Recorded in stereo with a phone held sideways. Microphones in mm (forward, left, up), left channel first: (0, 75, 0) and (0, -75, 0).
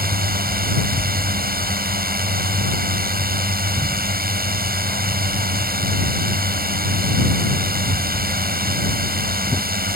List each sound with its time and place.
0.0 s a drone: 75° right (ahead or behind)